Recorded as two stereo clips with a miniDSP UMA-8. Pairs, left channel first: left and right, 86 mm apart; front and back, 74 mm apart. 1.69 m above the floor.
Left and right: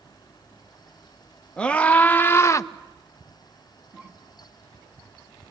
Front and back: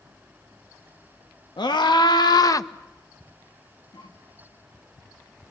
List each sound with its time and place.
1.6 s a scream: 10° left, 1.8 m; by 2.7 s 45° left, 0.9 m
3.9 s a cough: 15° right, 6 m